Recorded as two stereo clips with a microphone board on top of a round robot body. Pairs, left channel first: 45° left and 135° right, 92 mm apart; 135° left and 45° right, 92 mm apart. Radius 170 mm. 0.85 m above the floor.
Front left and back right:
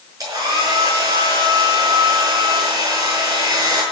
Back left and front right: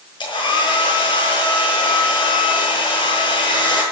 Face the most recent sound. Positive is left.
turn(degrees=170)